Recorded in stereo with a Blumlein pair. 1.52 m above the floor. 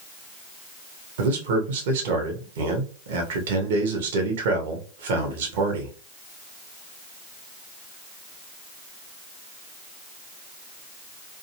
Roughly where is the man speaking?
Ahead right.